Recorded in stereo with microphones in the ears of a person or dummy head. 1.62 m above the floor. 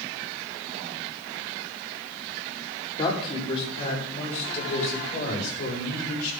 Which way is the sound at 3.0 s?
30° left (ahead or behind).